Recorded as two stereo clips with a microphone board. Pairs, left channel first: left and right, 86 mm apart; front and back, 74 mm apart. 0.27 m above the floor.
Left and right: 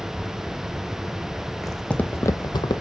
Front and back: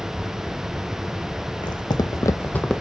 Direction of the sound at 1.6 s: Straight ahead.